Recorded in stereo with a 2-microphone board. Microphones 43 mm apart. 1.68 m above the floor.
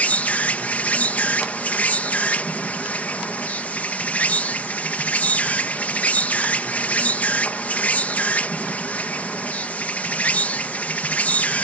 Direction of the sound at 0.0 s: 35° left (ahead or behind).